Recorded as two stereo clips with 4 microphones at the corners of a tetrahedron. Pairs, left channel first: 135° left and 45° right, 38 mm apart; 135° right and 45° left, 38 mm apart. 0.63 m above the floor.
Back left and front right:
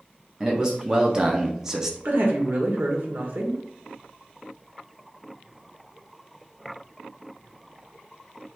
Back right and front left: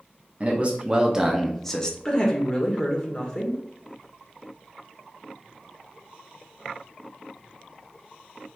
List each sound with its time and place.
0.4 s a man speaking: 15° left, 0.9 m; by 1.9 s 105° right, 0.7 m
2.0 s a woman speaking: 65° right, 1.4 m